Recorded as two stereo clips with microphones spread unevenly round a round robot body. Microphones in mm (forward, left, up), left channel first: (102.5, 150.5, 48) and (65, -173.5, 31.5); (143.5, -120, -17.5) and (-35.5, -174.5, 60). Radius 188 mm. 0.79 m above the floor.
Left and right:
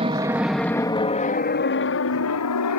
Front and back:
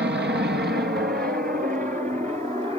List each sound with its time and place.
0.0 s an aircraft: 155° right; by 2.8 s 115° left